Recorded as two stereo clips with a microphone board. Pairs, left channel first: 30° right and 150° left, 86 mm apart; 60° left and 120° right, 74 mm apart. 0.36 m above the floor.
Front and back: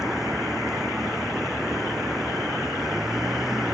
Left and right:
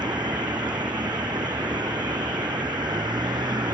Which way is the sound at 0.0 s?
125° right.